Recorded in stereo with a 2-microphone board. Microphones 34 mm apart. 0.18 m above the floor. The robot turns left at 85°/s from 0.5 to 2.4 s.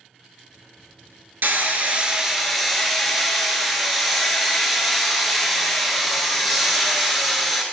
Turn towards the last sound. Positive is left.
turn(degrees=180)